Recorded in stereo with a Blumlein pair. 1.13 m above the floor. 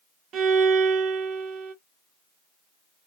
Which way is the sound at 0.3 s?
30° right.